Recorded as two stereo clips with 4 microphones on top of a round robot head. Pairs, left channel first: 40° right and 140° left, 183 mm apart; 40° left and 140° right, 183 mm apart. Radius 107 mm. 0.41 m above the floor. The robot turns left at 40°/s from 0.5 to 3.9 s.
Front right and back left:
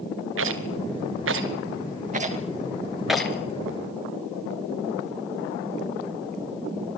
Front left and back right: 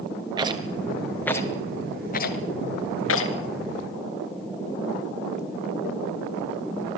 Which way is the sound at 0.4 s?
155° left.